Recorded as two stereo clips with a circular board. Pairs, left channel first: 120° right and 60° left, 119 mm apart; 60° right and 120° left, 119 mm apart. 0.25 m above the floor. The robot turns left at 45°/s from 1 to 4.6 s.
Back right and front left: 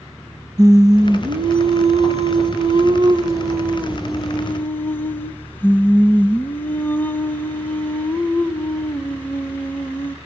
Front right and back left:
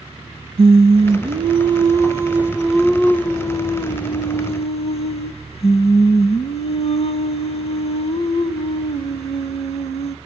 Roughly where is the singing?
Left.